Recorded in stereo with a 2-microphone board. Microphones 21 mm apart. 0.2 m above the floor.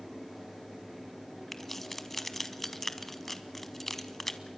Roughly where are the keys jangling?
Centre.